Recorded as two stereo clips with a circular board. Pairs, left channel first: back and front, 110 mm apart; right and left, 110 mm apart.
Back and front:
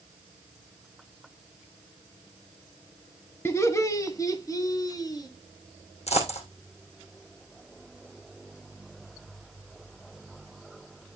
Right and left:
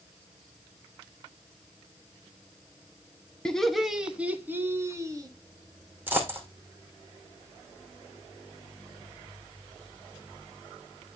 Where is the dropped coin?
165° left, 3 m.